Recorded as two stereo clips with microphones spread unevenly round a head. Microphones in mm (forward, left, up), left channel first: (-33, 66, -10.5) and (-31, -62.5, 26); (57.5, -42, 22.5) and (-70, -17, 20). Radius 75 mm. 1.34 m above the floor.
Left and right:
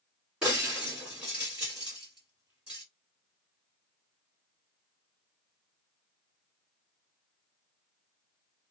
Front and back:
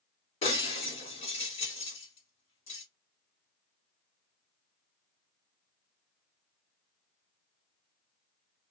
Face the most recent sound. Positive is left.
turn(degrees=-25)